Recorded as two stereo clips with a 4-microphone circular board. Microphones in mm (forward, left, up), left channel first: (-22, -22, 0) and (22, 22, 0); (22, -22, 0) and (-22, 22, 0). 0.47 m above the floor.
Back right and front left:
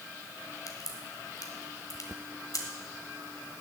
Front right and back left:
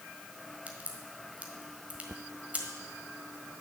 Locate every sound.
0.7 s a crack: 160° right, 1.5 m